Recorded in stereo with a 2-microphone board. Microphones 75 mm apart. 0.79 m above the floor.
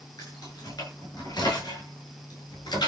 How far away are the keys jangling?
About 8.5 m.